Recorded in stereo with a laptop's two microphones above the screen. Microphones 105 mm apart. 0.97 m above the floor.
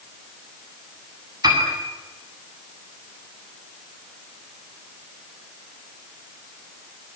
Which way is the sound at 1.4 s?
40° right (ahead or behind).